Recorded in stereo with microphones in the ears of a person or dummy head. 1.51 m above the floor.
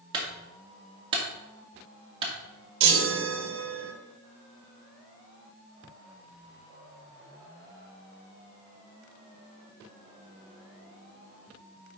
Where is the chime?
65° right (ahead or behind), 1.3 m.